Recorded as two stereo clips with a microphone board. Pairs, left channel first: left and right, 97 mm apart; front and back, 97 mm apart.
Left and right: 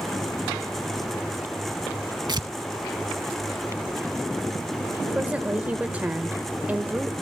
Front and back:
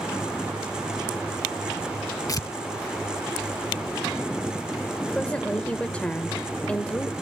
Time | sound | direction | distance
2.3 | tearing paper | 50° right | 0.9 m
5.2 | a woman speaking | 50° right | 1.3 m